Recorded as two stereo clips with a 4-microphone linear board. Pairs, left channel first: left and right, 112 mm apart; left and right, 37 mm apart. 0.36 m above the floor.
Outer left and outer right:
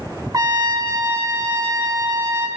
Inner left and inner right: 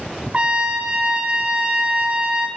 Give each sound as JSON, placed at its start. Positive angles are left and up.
{"t": 0.3, "sound": "a trumpet", "side_deg": -35, "distance_m": 0.8}